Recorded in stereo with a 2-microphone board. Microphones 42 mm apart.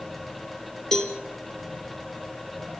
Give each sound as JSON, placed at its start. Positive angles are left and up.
{"t": 0.9, "sound": "a cowbell", "side_deg": 10, "distance_m": 1.9}